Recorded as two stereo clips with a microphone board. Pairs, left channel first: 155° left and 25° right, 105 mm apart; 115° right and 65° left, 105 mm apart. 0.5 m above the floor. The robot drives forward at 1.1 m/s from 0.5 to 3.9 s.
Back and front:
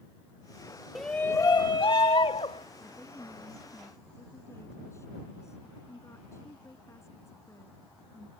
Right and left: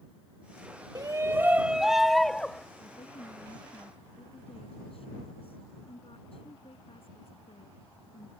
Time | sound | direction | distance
0.9 | a shout | 65° left | ?
2.8 | a woman speaking | 130° right | ?